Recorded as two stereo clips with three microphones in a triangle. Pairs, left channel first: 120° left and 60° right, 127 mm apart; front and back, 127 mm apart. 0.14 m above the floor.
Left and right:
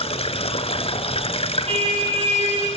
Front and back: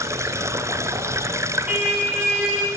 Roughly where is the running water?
Behind left.